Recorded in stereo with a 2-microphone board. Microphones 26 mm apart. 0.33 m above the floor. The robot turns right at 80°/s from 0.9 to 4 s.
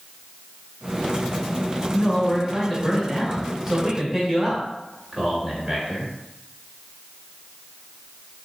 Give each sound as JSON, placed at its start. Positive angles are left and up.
{"t": 1.9, "sound": "a man speaking", "side_deg": 25, "distance_m": 1.3}